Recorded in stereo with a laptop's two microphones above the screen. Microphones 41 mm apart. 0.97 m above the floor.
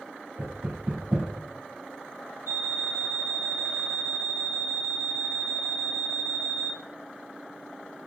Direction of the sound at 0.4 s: 85° right.